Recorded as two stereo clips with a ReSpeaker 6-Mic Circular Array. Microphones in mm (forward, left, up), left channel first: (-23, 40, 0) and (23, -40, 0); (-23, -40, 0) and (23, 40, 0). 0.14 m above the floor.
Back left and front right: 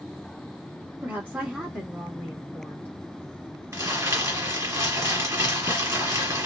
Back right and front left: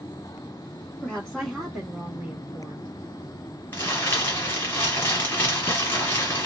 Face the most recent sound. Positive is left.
turn(degrees=-80)